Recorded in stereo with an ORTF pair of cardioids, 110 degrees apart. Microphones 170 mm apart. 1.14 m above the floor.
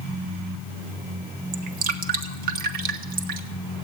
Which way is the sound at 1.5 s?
55° right.